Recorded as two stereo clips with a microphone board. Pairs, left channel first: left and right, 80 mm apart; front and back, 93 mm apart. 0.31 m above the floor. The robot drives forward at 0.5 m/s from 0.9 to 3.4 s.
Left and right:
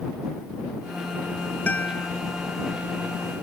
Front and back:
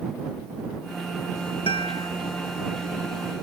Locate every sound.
1.7 s a guitar: 20° left